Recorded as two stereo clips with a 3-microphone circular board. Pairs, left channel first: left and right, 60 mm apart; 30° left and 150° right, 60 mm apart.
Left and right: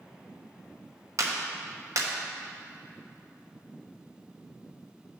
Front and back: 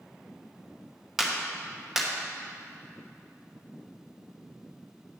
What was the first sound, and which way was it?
A clap, 65° right.